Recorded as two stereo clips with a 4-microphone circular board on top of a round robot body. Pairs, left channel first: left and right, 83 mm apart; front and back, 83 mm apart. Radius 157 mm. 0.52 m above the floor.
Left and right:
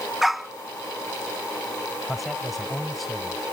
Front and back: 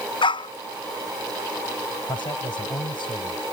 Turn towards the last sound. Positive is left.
turn(degrees=0)